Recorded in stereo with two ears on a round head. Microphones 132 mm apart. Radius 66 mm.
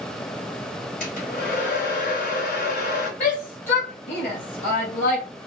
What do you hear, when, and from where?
1.0 s a hair dryer: 60° left (ahead or behind), 2.5 m
3.2 s a shout: 55° left (ahead or behind), 2 m